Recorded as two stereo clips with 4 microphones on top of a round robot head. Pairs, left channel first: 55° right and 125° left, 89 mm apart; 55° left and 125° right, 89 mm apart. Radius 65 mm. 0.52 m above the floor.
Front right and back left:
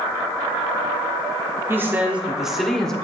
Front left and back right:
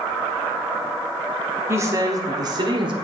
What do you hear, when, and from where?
1.7 s a woman speaking: straight behind, 1.0 m; by 3.0 s 135° right, 1.2 m